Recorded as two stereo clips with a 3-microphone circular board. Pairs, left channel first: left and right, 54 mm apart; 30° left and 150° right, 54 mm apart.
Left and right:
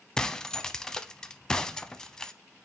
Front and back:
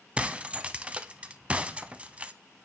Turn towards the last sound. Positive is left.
turn(degrees=160)